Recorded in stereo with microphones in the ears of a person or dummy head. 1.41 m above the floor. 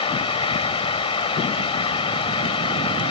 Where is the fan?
35° left (ahead or behind).